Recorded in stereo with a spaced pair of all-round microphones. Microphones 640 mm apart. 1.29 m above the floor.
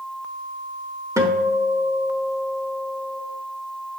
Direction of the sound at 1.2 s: 5° right (ahead or behind).